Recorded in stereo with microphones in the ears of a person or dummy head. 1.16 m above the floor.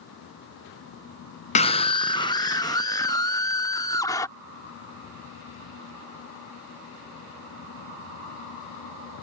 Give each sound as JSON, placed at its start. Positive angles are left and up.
{"t": 1.6, "sound": "a scream", "side_deg": 30}